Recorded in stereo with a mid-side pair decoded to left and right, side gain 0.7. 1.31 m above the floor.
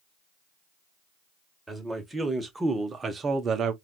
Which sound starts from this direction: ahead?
A man speaking, at 1.7 s.